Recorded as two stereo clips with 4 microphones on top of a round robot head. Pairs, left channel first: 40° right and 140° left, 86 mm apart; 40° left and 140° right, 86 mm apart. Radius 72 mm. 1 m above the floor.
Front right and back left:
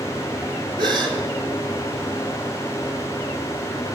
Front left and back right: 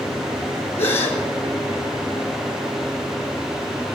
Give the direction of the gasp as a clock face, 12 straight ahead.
9 o'clock.